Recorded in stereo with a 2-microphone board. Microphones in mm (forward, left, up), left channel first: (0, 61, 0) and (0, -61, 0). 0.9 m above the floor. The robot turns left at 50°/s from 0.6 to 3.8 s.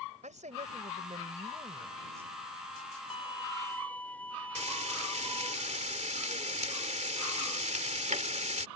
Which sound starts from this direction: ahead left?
A violin, at 3.1 s.